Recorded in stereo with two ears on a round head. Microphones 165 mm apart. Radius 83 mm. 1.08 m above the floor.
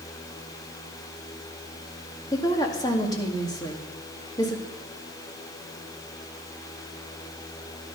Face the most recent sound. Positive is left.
turn(degrees=20)  # may be behind; listen again after turning